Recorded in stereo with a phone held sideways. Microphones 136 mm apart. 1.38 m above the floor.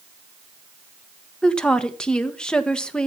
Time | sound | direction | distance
1.4 | a woman speaking | 5° left (ahead or behind) | 1.5 m